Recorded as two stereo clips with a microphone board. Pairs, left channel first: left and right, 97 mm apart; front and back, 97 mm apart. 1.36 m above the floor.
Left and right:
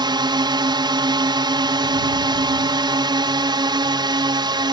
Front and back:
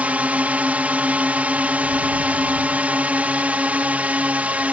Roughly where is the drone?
Right.